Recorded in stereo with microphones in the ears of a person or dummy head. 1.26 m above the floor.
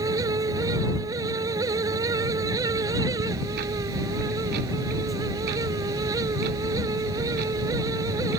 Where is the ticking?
50° right (ahead or behind).